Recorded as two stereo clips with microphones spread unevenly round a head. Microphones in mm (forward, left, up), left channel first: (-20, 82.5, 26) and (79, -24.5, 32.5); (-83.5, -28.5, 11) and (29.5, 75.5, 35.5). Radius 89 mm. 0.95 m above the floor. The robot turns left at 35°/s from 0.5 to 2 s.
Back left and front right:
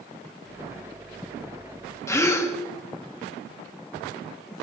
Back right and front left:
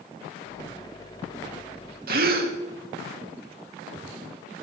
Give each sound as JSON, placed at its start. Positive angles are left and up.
{"t": 2.1, "sound": "a gasp", "azimuth_deg": 65, "distance_m": 2.0}